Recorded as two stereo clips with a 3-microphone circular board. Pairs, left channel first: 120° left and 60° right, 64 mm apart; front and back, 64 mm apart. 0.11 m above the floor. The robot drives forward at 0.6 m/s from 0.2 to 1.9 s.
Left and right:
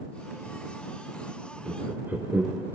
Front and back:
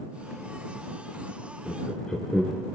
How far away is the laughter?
About 1.6 m.